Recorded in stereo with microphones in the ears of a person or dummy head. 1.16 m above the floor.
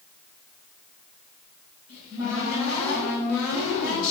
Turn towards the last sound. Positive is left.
turn(degrees=85)